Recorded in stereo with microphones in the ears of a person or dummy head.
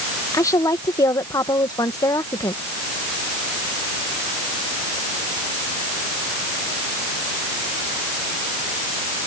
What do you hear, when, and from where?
0.3 s a woman speaking: 15° left (ahead or behind)